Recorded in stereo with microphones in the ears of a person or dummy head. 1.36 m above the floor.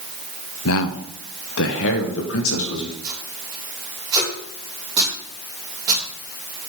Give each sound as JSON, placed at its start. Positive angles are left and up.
{"t": 0.7, "sound": "a man speaking", "side_deg": 65, "distance_m": 0.6}
{"t": 3.0, "sound": "tape being pulled", "side_deg": -20, "distance_m": 3.5}